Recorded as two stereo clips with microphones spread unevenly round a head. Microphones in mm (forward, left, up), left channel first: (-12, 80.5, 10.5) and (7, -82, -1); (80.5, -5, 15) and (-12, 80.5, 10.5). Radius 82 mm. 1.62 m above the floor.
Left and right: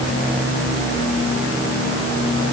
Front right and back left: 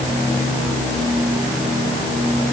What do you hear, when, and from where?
Only background noise.